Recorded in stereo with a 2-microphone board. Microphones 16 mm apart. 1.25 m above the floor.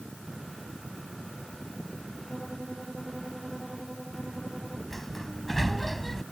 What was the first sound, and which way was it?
A violin, 45° right (ahead or behind).